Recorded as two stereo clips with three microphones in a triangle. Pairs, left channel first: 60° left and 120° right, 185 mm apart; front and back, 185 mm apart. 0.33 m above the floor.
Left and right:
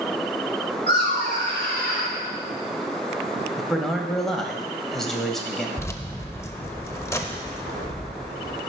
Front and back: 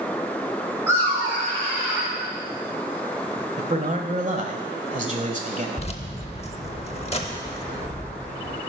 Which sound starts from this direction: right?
Laughter, at 0.9 s.